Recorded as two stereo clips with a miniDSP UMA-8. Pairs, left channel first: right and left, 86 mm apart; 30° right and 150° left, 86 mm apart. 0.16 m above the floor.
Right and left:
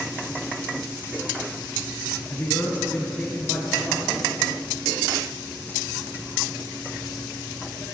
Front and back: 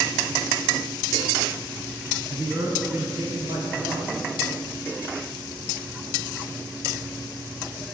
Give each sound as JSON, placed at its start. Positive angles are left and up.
{"t": 2.3, "sound": "a man speaking", "azimuth_deg": -145, "distance_m": 1.9}